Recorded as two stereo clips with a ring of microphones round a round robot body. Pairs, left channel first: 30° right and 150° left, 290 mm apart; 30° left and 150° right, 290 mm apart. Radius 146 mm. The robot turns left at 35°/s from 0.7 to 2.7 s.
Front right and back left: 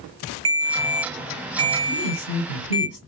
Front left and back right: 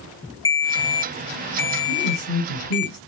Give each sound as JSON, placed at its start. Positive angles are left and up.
{"t": 0.5, "sound": "a ringtone", "azimuth_deg": 110, "distance_m": 1.4}
{"t": 1.9, "sound": "a woman speaking", "azimuth_deg": -30, "distance_m": 3.0}